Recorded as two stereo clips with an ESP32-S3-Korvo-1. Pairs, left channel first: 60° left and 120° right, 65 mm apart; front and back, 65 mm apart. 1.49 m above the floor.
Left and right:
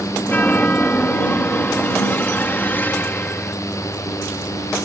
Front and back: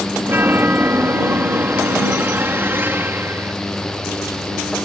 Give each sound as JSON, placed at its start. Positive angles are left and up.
{"t": 0.2, "sound": "a chime", "azimuth_deg": 125}